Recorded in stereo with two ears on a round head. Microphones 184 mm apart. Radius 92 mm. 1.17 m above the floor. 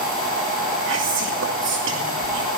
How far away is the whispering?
About 2.5 m.